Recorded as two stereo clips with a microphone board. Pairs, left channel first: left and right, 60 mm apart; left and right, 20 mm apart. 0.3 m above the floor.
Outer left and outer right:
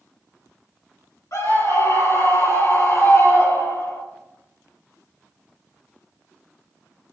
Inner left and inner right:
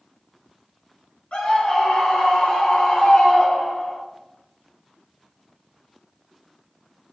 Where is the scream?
70° left (ahead or behind), 5.5 m; by 4.0 s 75° left (ahead or behind), 4.5 m.